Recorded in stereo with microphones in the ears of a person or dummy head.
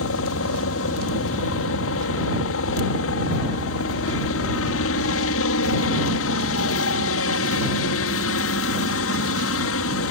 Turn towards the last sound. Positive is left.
turn(degrees=65)  # may be behind; listen again after turning